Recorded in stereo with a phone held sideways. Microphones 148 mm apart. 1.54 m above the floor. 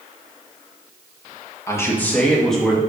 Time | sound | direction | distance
1.7 | a man speaking | 20° left (ahead or behind) | 2.0 m